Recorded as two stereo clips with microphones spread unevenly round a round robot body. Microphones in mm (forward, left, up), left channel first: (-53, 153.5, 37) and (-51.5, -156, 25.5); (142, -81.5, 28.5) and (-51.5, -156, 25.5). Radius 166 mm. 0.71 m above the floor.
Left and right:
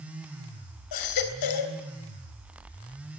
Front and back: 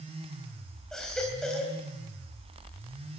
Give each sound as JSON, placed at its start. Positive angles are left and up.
{"t": 0.9, "sound": "a baby crying", "azimuth_deg": 110, "distance_m": 3.0}